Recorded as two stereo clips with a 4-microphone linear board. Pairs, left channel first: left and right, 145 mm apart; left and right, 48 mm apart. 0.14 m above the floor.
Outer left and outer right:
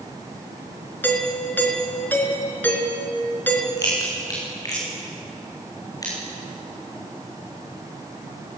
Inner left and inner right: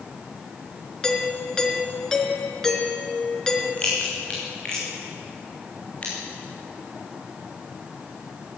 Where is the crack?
25° left (ahead or behind), 7 m.